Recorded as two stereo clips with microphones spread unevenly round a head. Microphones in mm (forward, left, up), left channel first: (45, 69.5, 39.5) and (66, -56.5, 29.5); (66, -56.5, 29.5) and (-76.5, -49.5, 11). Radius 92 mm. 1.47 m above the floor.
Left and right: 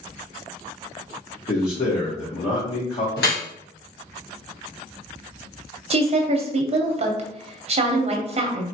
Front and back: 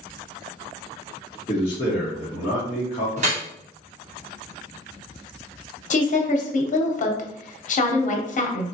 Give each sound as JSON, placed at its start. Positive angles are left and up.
{"t": 1.5, "sound": "a man speaking", "azimuth_deg": 65, "distance_m": 1.2}
{"t": 3.2, "sound": "dripping", "azimuth_deg": 120, "distance_m": 1.1}
{"t": 5.9, "sound": "a woman speaking", "azimuth_deg": -40, "distance_m": 0.7}